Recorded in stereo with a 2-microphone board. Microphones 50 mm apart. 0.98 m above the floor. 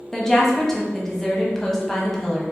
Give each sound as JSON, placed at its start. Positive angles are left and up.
{"t": 0.1, "sound": "a woman speaking", "side_deg": 10, "distance_m": 0.8}